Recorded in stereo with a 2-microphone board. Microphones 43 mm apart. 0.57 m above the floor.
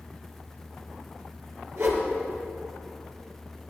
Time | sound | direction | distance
1.8 | a whoosh | 75° right (ahead or behind) | 4 m